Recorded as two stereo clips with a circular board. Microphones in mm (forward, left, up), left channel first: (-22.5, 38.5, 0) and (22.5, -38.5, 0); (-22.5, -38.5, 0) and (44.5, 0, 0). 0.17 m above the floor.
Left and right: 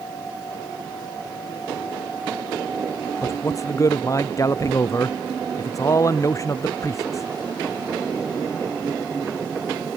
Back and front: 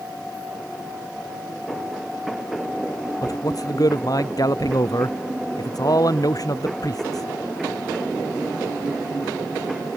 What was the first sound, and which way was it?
A man speaking, 175° left.